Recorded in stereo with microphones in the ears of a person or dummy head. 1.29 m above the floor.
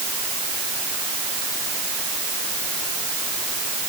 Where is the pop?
No pop in this recording.